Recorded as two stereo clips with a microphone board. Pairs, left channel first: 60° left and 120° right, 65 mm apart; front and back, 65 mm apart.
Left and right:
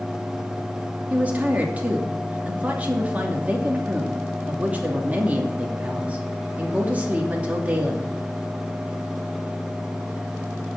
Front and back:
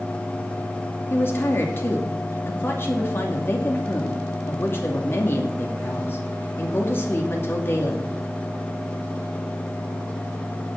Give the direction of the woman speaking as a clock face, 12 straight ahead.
2 o'clock.